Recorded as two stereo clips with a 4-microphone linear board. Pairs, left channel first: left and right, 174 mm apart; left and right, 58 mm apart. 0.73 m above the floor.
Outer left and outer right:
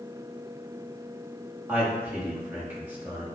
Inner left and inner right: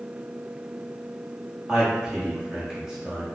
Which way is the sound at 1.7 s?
10° right (ahead or behind).